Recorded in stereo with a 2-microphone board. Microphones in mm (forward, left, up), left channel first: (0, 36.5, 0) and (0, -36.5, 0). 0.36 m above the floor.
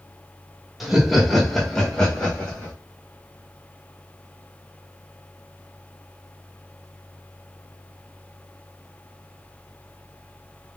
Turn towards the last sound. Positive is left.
turn(degrees=15)  # may be behind; listen again after turning